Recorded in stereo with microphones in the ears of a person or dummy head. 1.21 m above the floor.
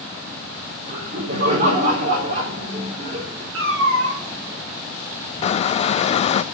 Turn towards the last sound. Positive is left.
turn(degrees=40)  # may be behind; listen again after turning